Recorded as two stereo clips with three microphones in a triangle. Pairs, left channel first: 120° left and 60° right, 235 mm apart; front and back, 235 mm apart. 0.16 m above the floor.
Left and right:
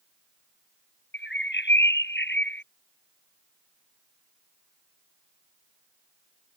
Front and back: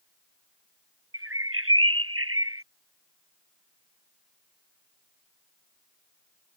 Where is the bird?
160° left.